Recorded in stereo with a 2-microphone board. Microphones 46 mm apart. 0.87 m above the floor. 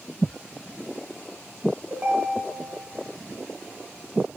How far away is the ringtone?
About 1.7 m.